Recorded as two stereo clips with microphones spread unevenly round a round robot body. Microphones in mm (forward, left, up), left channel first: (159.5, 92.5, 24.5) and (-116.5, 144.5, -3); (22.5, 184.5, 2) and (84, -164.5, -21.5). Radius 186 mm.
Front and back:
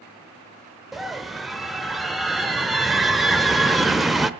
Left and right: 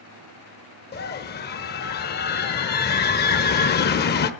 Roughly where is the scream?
Left.